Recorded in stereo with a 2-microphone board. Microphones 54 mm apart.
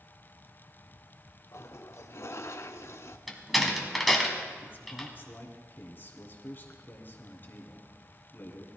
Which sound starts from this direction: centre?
A door slam, at 3.3 s.